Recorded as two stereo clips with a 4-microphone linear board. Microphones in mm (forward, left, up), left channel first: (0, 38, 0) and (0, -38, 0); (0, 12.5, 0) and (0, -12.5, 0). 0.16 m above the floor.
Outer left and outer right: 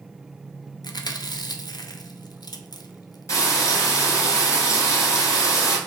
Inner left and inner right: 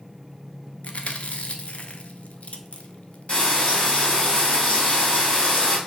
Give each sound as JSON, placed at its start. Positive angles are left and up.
{"t": 0.8, "sound": "chewing", "side_deg": 65, "distance_m": 0.5}
{"t": 3.3, "sound": "frying", "side_deg": 45, "distance_m": 1.8}